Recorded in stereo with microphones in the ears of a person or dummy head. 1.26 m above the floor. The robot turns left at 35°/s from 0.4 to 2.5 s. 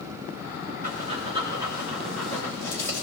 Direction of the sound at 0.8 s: 45° right (ahead or behind).